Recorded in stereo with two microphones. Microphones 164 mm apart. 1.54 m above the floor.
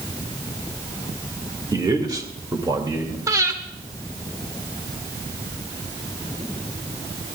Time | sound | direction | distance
1.7 | a man speaking | 25° right (ahead or behind) | 2 m
3.3 | breathing | 20° right (ahead or behind) | 1.8 m